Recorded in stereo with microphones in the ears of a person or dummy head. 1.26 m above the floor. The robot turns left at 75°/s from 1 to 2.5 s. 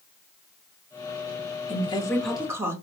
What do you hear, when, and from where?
1.7 s a woman speaking: 50° left, 0.9 m; by 2.7 s 10° right, 0.9 m